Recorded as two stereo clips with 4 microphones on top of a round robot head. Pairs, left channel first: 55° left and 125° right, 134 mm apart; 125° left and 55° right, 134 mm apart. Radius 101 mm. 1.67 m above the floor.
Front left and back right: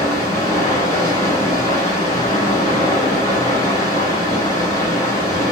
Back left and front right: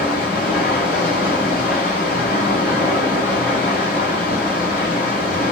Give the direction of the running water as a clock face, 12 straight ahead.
8 o'clock.